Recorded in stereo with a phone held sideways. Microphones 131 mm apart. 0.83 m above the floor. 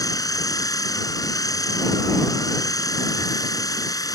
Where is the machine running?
25° left (ahead or behind).